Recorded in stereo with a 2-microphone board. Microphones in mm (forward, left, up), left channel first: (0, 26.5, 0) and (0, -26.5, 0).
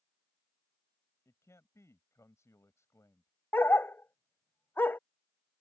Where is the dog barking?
45° left (ahead or behind).